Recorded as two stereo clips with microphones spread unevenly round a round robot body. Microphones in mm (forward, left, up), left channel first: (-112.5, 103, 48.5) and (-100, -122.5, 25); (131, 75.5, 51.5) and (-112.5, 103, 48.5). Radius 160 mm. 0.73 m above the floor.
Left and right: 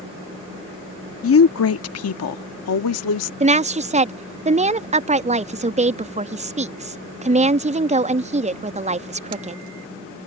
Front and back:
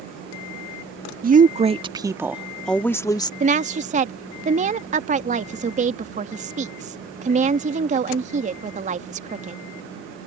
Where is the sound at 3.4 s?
130° right.